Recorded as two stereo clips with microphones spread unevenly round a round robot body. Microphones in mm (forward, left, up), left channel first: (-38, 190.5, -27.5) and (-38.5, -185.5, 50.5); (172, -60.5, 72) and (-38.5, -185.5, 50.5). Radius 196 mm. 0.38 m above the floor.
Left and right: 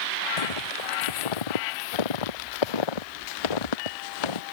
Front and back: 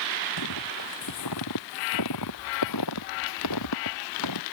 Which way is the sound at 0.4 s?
70° left.